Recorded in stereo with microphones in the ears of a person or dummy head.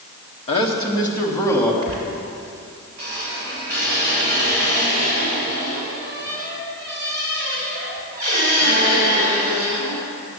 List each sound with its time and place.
0.5 s a man speaking: 30° left (ahead or behind), 1.5 m; by 1.7 s 10° left (ahead or behind), 2.5 m
1.8 s a squeak: 35° right (ahead or behind), 2.5 m